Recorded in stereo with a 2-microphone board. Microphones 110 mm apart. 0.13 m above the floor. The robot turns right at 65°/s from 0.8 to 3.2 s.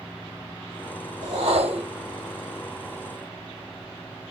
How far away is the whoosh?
About 3 m.